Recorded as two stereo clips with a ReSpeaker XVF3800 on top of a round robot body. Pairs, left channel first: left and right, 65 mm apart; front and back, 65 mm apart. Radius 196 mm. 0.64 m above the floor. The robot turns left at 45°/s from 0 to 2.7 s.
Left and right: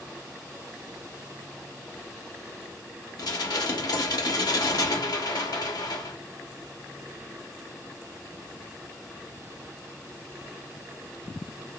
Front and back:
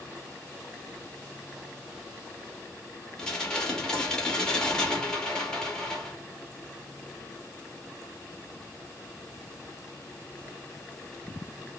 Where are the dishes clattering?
80° left, 0.9 m.